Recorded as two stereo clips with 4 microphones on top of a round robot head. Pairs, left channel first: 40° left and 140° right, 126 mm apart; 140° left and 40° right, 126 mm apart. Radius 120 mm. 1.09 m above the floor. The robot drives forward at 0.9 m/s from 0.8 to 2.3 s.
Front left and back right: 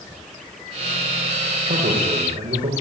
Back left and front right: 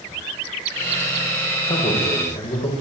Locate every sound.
1.7 s a man speaking: 175° left, 6 m